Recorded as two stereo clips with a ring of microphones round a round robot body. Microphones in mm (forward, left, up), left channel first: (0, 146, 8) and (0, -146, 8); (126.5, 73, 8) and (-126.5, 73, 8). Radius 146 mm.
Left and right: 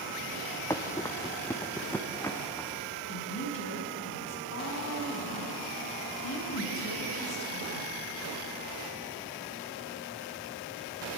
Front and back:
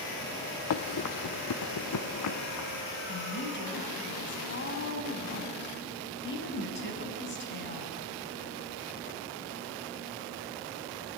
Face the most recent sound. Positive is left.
turn(degrees=45)